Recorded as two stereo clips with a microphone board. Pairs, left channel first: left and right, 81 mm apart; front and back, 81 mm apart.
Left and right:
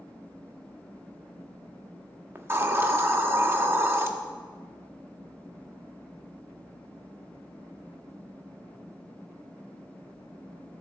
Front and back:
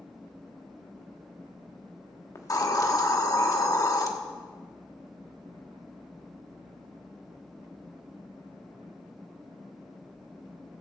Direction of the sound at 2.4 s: 35° right.